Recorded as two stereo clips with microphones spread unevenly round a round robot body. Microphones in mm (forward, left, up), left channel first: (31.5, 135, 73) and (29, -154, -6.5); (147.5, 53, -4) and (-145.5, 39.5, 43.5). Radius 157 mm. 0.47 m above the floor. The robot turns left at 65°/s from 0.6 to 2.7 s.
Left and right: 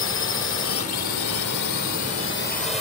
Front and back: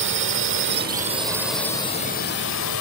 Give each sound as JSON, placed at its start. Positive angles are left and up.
{"t": 0.0, "sound": "a drone", "azimuth_deg": 140}